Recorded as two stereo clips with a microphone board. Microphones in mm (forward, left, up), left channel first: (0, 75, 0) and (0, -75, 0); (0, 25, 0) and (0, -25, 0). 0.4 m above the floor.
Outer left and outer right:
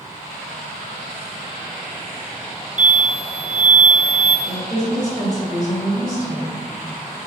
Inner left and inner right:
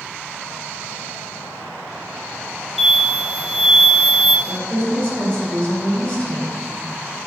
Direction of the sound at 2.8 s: 10° right (ahead or behind).